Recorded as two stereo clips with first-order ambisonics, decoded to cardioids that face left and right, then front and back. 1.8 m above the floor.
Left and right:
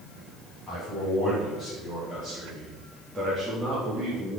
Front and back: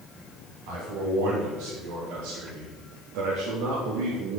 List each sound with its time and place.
0.7 s a man speaking: 175° right, 6.5 m